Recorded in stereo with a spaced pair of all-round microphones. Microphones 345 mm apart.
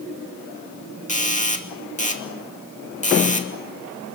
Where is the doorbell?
20° left (ahead or behind), 2.5 m.